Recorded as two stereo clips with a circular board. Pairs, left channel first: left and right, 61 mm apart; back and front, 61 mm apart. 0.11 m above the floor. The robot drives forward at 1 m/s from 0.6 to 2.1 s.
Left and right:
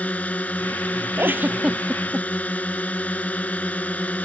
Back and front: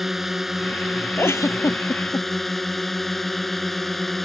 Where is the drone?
80° left; by 4.2 s 95° left.